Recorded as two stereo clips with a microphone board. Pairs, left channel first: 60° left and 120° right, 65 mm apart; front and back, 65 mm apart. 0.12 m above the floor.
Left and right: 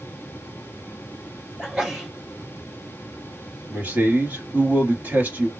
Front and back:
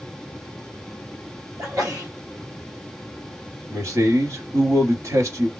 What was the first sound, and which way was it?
A sneeze, 170° left.